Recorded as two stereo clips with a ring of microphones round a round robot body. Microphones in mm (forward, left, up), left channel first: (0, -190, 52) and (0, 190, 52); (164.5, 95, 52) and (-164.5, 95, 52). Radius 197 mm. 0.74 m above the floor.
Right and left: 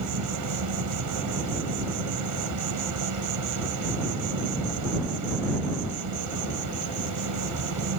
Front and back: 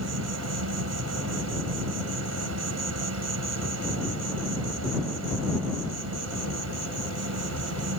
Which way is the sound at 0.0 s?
135° left.